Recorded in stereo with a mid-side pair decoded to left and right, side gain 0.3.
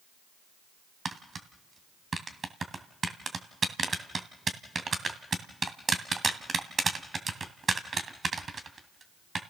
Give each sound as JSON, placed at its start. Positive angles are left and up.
{"t": 1.1, "sound": "tapping", "azimuth_deg": -55, "distance_m": 2.5}